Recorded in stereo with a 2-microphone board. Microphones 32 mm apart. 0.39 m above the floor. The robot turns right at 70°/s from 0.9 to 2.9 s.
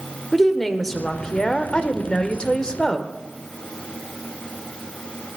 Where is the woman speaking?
5° left (ahead or behind), 1.2 m; by 3.1 s 15° left (ahead or behind), 1.2 m.